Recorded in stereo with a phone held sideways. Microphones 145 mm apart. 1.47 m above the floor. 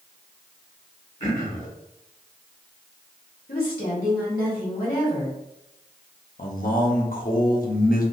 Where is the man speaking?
75° left (ahead or behind), 0.7 m.